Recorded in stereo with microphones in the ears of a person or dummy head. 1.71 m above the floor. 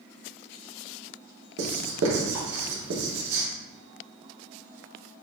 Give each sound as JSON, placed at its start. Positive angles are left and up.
{"t": 1.6, "sound": "writing", "side_deg": -75, "distance_m": 1.1}